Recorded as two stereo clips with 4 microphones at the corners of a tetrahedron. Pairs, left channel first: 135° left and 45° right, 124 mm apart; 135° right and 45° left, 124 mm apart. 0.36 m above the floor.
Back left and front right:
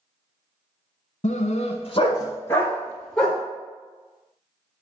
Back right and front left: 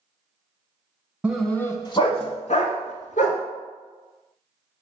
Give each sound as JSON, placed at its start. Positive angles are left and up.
{"t": 1.2, "sound": "a dog barking", "azimuth_deg": 125, "distance_m": 1.1}